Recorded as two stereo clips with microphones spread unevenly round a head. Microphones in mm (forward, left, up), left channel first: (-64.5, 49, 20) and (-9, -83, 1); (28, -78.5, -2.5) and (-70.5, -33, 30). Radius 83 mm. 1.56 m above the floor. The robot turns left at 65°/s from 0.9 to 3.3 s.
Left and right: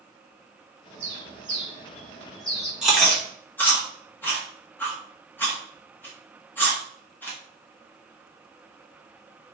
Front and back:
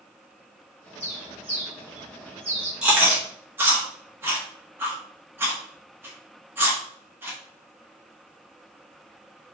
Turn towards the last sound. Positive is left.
turn(degrees=170)